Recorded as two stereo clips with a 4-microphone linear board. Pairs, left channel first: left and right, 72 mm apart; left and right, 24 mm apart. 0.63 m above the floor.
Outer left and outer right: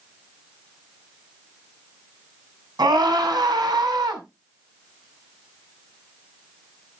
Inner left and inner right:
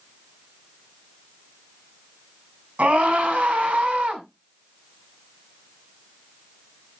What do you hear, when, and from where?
2.8 s a scream: 75° right (ahead or behind), 5 m